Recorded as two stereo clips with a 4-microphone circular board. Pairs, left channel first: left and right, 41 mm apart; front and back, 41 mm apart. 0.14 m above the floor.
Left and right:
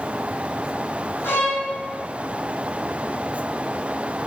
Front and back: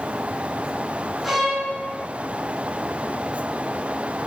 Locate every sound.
1.2 s a violin: 90° left, 3 m